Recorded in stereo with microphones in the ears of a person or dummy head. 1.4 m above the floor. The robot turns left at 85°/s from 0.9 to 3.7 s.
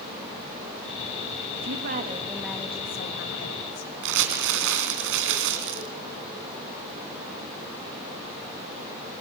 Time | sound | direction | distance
1.6 | a woman speaking | 105° right | 1.9 m
4.0 | crumpling | 65° right (ahead or behind) | 3 m